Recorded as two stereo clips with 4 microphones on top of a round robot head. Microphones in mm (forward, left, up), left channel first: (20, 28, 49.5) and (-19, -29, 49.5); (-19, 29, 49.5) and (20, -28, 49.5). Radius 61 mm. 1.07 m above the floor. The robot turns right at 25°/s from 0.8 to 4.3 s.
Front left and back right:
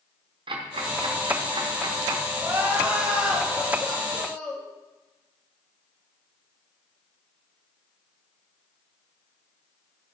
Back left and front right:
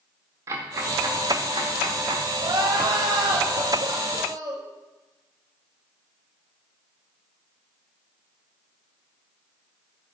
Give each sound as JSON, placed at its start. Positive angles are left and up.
{"t": 0.5, "sound": "ticking", "azimuth_deg": -110, "distance_m": 1.3}
{"t": 2.4, "sound": "crying", "azimuth_deg": -65, "distance_m": 2.0}